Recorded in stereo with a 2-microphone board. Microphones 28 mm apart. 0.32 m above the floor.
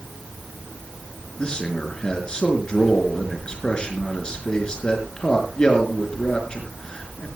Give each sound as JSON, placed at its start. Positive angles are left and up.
{"t": 1.4, "sound": "a man speaking", "side_deg": 30, "distance_m": 4.0}